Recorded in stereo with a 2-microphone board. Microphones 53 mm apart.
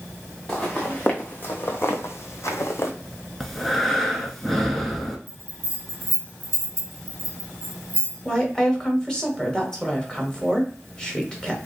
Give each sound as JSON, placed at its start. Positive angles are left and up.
{"t": 0.5, "sound": "footsteps", "side_deg": 15, "distance_m": 1.2}
{"t": 3.4, "sound": "breathing", "side_deg": 5, "distance_m": 0.6}
{"t": 5.3, "sound": "a bell", "side_deg": 0, "distance_m": 1.0}
{"t": 8.2, "sound": "a woman speaking", "side_deg": 15, "distance_m": 1.0}